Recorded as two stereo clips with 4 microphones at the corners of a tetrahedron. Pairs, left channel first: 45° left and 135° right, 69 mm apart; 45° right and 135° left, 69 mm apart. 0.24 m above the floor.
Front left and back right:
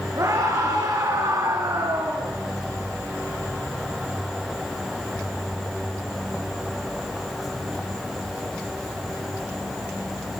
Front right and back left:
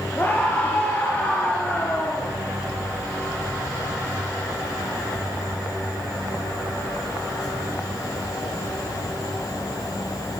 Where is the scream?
105° right, 5 m.